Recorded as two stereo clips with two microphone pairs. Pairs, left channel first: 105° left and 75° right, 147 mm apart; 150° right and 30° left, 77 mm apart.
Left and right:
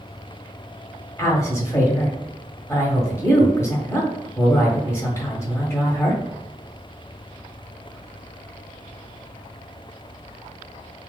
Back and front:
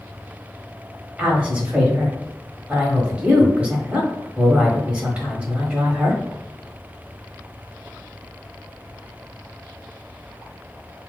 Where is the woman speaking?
75° left, 1.5 m.